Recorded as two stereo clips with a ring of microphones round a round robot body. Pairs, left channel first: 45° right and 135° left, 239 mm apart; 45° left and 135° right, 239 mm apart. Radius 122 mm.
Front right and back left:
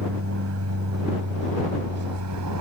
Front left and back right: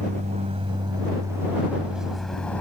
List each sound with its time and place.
0.0 s an aircraft: 165° left; by 2.6 s 130° left